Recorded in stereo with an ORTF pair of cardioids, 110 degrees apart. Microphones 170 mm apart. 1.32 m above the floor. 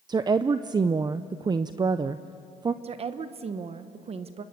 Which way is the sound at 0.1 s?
25° right.